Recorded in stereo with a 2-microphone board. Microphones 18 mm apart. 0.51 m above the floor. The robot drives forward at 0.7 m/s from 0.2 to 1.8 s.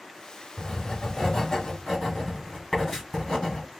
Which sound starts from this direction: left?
Writing, at 0.6 s.